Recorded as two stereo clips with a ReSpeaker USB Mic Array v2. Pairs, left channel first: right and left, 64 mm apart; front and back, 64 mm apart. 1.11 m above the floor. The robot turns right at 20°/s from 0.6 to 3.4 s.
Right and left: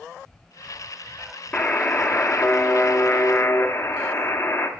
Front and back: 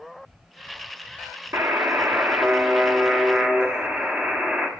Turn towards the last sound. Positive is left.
turn(degrees=-110)